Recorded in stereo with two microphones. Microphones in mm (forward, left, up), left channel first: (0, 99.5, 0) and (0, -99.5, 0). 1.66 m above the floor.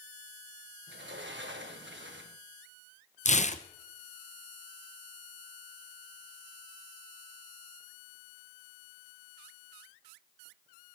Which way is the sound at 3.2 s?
35° left (ahead or behind).